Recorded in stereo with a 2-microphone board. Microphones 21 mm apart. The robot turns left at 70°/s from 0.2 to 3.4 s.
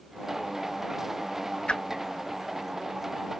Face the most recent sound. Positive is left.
turn(degrees=-75)  # may be behind; listen again after turning